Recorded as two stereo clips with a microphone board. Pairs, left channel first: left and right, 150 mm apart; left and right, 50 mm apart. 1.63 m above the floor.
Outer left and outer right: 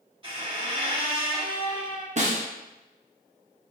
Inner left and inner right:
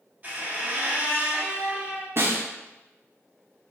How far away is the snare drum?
About 0.7 m.